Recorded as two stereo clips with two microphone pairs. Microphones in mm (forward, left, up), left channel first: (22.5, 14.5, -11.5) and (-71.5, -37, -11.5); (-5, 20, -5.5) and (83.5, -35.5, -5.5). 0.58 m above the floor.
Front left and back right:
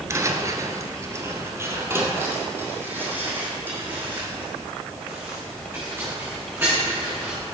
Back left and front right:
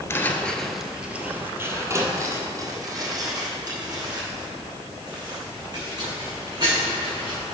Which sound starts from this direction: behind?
Footsteps, at 0.1 s.